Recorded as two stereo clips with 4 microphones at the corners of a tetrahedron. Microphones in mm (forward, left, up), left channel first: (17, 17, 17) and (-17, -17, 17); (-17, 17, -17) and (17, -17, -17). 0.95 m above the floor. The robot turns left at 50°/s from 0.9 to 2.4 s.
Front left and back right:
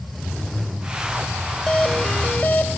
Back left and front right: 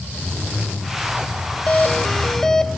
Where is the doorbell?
100° left, 0.9 m; by 2.7 s 65° left, 0.9 m.